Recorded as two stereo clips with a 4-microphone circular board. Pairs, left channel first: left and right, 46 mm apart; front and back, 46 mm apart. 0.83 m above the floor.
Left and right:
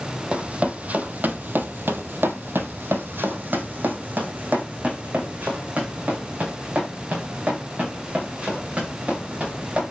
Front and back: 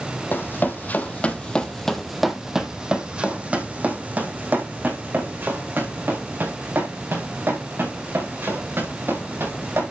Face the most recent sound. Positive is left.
turn(degrees=-155)